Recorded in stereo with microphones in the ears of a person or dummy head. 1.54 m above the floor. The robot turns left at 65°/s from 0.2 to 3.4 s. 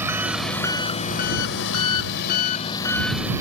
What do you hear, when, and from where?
0.0 s an engine running: 175° right; by 3.4 s 20° right